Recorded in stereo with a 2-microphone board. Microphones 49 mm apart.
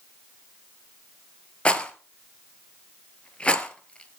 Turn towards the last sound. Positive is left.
turn(degrees=25)  # may be behind; listen again after turning